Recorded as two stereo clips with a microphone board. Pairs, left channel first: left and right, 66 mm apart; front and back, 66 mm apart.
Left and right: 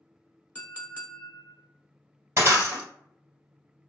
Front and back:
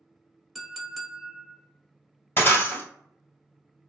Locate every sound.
0.6 s a clink: 100° left, 0.7 m
2.4 s breaking glass: 50° right, 1.5 m